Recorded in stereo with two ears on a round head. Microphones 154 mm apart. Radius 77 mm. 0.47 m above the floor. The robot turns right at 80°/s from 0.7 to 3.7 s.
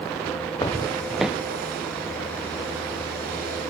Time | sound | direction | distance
0.6 | footsteps | 25° left (ahead or behind) | 0.5 m